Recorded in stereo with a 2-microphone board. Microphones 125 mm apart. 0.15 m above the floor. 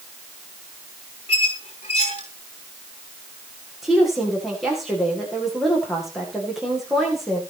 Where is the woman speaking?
Centre (ahead or behind), 9 m.